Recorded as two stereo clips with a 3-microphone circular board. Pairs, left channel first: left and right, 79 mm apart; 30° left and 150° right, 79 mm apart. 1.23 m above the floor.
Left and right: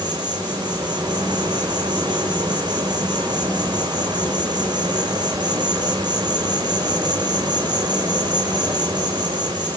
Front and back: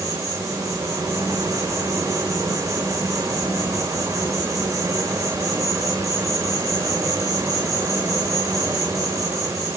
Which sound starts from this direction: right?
An insect, at 0.0 s.